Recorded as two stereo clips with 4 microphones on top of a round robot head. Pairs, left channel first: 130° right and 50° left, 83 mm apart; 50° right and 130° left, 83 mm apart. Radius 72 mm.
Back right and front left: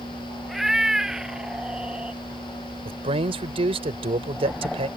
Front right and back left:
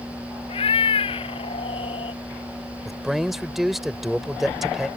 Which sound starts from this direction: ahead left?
A man speaking, at 2.9 s.